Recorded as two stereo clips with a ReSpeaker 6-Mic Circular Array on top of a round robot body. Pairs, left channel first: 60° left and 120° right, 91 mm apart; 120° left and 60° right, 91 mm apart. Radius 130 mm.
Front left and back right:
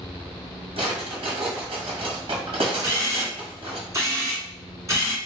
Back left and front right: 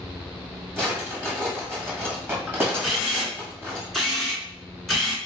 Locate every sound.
0.8 s a drawer: 125° right, 1.3 m
2.8 s a camera shutter: 150° right, 1.7 m